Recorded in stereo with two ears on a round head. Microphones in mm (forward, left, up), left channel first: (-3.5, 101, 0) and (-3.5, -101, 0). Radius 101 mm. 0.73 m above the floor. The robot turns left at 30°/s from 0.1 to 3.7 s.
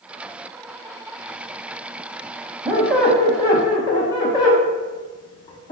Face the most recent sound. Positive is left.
turn(degrees=160)